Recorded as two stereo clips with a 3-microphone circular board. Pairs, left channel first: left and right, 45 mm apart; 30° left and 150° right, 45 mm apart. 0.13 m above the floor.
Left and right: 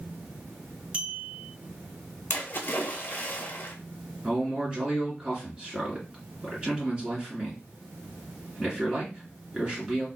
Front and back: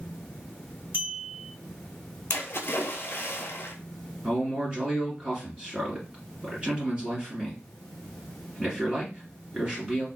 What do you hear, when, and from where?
0.9 s a clink: 155° right, 1.5 m
2.3 s a splash: 55° left, 0.6 m
4.2 s a man speaking: 125° right, 1.6 m